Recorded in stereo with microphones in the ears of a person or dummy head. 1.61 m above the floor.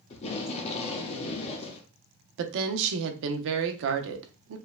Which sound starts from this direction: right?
A woman speaking, at 2.4 s.